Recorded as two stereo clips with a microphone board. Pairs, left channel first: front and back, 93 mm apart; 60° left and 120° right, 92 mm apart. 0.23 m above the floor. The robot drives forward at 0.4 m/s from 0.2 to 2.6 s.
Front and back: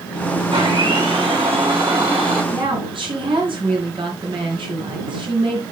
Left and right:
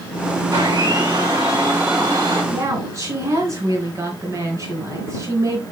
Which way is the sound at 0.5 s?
170° right.